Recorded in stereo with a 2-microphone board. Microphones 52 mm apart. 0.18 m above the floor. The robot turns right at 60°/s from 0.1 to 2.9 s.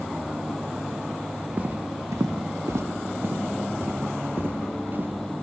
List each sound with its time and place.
1.6 s footsteps: 30° right (ahead or behind), 2.0 m; by 5.1 s 40° right (ahead or behind), 3 m